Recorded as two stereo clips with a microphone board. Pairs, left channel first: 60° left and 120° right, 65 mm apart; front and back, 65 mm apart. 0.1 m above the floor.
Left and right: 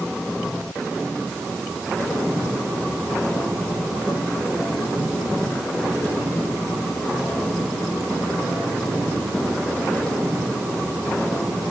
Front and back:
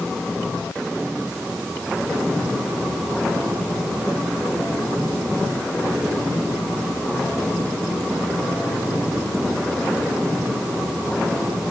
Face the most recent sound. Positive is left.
No sound to turn to.